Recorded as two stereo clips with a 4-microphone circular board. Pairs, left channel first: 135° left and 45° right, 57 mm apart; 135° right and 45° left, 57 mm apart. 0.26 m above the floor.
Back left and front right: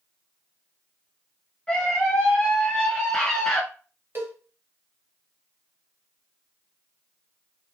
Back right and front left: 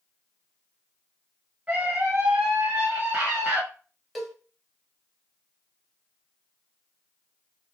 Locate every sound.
1.7 s a scream: 75° left, 1.1 m
4.2 s a cowbell: 45° right, 0.9 m